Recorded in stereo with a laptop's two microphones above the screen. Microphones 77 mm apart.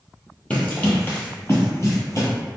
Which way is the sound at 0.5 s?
20° left (ahead or behind).